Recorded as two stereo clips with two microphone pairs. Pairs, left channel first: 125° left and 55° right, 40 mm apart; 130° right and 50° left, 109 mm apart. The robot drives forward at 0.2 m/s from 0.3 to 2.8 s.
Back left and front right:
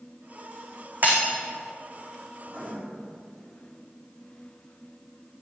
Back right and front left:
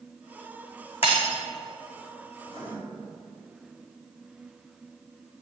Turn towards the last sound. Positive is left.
turn(degrees=-120)